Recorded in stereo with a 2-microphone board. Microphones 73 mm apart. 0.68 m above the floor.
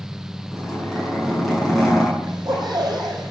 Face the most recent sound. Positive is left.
turn(degrees=-80)